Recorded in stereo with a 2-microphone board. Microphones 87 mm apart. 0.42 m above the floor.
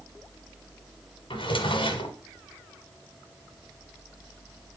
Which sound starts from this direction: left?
A drawer, at 1.3 s.